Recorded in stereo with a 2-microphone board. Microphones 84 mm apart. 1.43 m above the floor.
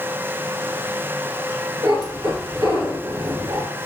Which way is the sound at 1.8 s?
55° right (ahead or behind).